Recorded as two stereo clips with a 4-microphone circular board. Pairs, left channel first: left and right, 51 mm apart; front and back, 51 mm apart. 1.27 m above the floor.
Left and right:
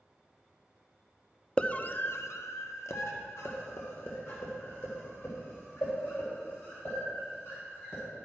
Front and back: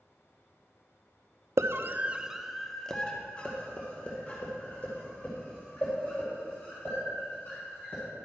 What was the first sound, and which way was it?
A scream, 155° left.